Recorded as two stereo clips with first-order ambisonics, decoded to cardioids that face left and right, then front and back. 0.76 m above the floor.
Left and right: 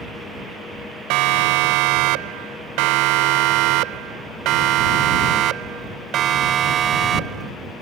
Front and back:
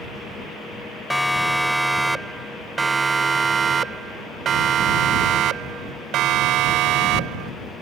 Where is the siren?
85° right; by 7.5 s 150° right.